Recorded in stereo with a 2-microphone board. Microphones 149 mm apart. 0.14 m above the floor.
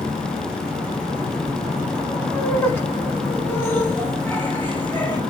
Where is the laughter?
15° left (ahead or behind), 1.4 m; by 5.2 s 10° left (ahead or behind), 1.8 m.